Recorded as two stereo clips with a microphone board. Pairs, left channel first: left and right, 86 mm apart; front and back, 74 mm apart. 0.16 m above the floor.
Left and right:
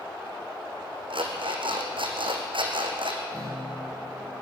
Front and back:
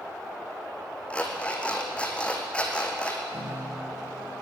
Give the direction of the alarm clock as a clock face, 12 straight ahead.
3 o'clock.